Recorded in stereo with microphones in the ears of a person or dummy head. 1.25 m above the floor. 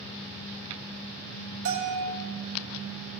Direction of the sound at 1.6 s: 70° right (ahead or behind).